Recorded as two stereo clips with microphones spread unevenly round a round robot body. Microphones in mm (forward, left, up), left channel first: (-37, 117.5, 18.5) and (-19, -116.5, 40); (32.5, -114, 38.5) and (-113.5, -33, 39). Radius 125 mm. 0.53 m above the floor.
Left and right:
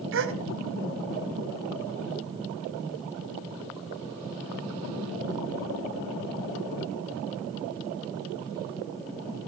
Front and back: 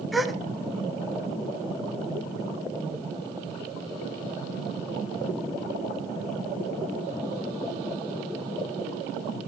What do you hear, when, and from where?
0.1 s a gasp: 120° right, 1.7 m